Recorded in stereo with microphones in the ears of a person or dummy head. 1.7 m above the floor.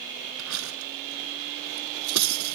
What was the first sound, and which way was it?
Cutlery clinking, 85° right.